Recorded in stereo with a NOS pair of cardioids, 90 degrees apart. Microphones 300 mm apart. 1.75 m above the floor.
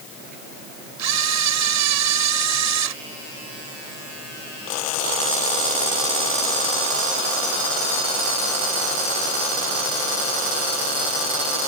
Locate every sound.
1.0 s a camera shutter: 65° right